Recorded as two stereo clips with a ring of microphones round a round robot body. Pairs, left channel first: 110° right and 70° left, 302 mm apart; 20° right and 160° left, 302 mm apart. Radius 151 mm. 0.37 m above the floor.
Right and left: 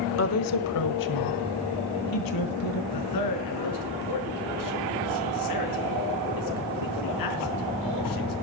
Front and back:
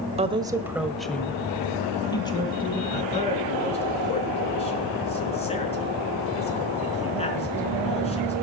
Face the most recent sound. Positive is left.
turn(degrees=-95)